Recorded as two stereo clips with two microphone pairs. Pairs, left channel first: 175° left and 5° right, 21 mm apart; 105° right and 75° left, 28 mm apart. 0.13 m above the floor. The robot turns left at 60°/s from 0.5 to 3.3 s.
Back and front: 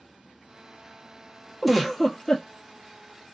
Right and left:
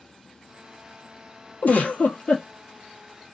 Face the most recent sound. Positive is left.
turn(degrees=170)